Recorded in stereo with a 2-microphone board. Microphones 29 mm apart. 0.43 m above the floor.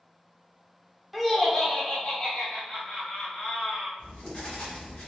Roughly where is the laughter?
Centre.